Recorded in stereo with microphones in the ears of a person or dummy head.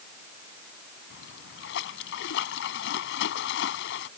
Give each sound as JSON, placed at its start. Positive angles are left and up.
{"t": 1.1, "sound": "a splash", "side_deg": 70}